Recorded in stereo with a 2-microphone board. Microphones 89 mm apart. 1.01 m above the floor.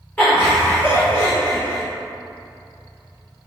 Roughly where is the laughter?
Centre.